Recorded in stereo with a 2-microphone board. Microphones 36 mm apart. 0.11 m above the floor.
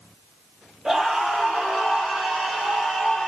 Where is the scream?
25° right (ahead or behind), 3 m; by 3.3 s 20° right (ahead or behind), 5.5 m.